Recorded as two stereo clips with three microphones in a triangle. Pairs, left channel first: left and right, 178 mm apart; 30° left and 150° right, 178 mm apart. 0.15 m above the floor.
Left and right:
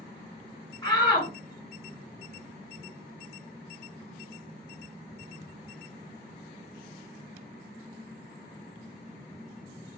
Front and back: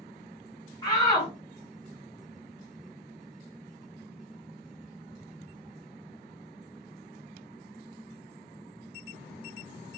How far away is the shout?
About 1.9 m.